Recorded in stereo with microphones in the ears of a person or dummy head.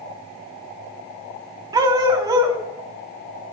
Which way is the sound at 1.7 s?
20° right (ahead or behind).